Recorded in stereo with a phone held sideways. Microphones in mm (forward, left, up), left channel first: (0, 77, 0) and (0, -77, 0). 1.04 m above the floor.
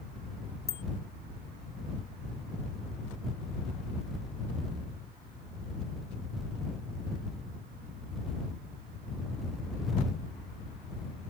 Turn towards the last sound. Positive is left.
turn(degrees=-20)  # may be behind; listen again after turning